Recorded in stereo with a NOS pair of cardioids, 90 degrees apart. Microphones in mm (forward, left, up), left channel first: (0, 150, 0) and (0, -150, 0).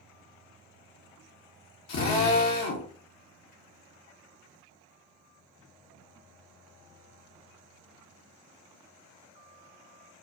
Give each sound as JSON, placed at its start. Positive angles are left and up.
{"t": 1.9, "sound": "a drill", "azimuth_deg": 65, "distance_m": 1.0}